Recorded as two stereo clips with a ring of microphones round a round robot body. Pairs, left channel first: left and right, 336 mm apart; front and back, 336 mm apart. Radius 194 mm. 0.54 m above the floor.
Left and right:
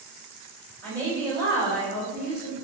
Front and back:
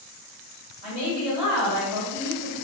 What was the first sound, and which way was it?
A woman speaking, straight ahead.